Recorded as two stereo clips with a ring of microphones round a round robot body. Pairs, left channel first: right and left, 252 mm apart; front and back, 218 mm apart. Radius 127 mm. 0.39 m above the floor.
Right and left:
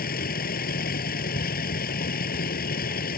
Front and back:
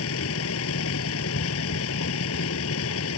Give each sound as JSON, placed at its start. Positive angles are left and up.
{"t": 0.0, "sound": "a vehicle", "azimuth_deg": -35}